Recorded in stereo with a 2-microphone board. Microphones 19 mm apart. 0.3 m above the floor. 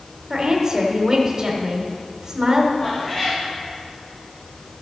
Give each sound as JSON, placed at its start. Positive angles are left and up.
{"t": 0.3, "sound": "a woman speaking", "side_deg": -30, "distance_m": 1.2}
{"t": 2.8, "sound": "a cat meowing", "side_deg": 40, "distance_m": 3.5}